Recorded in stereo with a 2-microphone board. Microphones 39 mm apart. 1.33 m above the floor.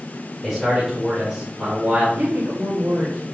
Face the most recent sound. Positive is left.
turn(degrees=-55)  # may be behind; listen again after turning